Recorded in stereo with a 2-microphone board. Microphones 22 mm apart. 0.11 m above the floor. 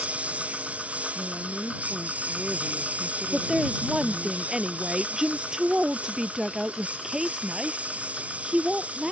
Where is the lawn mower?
70° right (ahead or behind); by 9.1 s 80° right.